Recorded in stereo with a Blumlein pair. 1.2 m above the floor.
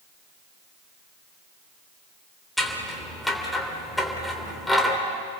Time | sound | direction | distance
2.6 | scissors | 5° left | 3 m